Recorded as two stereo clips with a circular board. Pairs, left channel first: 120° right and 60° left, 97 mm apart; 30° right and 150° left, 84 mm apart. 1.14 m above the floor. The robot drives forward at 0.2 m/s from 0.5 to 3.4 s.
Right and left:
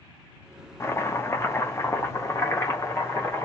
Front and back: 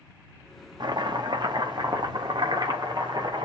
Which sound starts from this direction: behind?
Chopping, at 0.8 s.